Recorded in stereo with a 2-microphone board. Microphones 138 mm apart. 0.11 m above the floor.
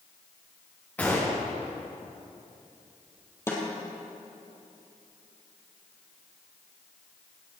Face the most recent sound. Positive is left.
turn(degrees=20)  # may be behind; listen again after turning